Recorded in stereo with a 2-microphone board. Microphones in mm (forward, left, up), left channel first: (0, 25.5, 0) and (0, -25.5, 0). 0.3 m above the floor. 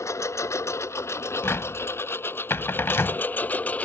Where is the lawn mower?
75° left (ahead or behind); by 3.9 s 30° left (ahead or behind).